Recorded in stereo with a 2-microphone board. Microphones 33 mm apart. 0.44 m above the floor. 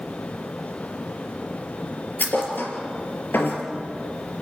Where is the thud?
85° left, 4 m.